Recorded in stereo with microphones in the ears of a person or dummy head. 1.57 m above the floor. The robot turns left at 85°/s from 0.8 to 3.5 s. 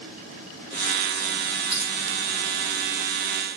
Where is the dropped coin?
35° right (ahead or behind), 1.7 m; by 1.9 s 50° right (ahead or behind), 1.7 m.